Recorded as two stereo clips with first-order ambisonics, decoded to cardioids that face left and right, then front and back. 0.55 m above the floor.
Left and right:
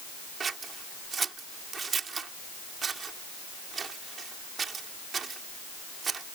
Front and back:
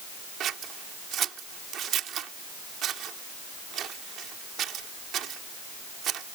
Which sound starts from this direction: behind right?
Scissors, at 0.4 s.